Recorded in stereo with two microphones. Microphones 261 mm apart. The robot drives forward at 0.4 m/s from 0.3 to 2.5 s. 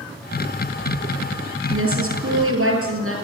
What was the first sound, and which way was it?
A woman speaking, 55° right (ahead or behind).